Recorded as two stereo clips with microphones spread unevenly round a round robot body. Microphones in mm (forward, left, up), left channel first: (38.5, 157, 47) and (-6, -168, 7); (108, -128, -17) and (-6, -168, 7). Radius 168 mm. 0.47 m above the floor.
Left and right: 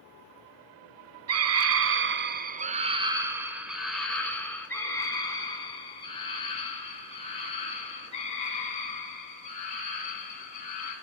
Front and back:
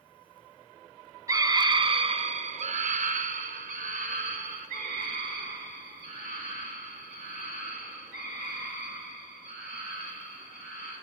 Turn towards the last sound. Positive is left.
turn(degrees=155)